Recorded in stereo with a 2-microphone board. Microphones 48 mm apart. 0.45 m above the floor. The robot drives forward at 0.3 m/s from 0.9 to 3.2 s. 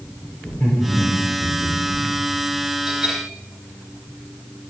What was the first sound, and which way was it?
Laughter, 45° left (ahead or behind).